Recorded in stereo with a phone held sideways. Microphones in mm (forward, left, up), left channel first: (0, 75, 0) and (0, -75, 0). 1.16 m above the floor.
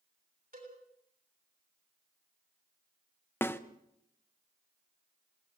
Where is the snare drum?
15° left (ahead or behind), 0.9 m.